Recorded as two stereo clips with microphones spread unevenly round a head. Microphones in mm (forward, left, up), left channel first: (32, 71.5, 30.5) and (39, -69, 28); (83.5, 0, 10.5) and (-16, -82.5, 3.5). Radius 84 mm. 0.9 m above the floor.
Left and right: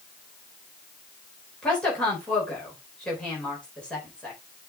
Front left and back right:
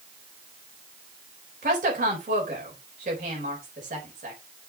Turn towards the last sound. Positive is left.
turn(degrees=175)